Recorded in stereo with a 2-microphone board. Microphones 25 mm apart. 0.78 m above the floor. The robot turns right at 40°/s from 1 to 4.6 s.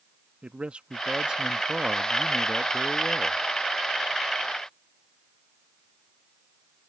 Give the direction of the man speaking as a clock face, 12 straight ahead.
2 o'clock.